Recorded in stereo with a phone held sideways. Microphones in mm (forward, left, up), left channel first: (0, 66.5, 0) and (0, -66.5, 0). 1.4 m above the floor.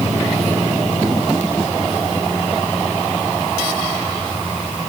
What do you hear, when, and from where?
Only background noise.